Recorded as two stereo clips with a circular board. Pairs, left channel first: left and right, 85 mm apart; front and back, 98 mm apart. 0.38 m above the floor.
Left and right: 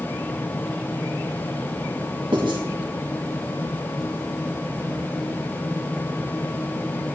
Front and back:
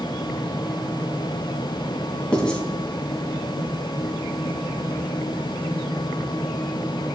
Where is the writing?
80° right, 2.5 m.